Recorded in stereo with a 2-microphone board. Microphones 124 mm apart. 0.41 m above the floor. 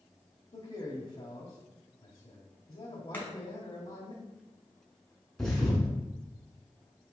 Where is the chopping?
15° left (ahead or behind), 1.4 m.